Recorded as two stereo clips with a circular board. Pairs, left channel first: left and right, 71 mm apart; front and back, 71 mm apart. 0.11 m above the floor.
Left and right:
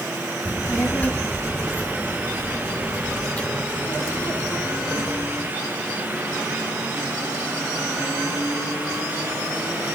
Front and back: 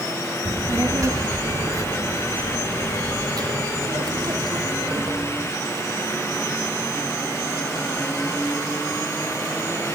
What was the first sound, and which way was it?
A child speaking, 150° left.